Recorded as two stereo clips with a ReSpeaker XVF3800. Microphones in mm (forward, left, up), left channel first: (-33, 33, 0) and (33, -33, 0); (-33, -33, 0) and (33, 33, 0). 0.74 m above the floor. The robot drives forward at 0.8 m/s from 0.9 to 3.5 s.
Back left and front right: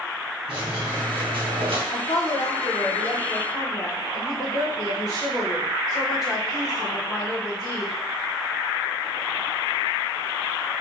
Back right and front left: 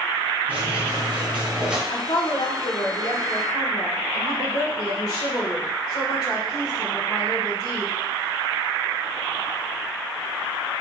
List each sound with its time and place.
0.5 s a squeak: 25° right, 2.5 m; by 1.8 s 35° right, 1.7 m
1.9 s a woman speaking: 170° right, 1.1 m; by 7.9 s 175° right, 2.5 m